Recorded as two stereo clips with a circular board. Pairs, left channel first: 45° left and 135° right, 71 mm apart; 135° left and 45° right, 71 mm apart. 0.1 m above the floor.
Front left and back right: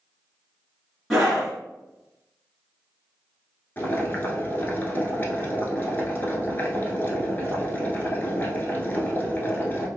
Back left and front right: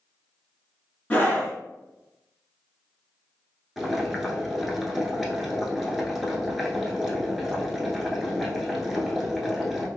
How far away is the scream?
About 1.2 m.